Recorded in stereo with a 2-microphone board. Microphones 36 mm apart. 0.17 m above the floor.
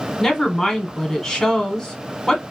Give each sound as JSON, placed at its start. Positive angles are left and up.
{"t": 0.2, "sound": "a woman speaking", "side_deg": 10, "distance_m": 1.1}